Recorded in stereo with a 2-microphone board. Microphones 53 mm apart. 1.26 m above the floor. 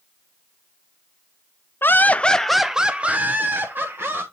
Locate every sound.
1.8 s laughter: 45° left (ahead or behind), 0.6 m; by 4.2 s 45° right (ahead or behind), 1.3 m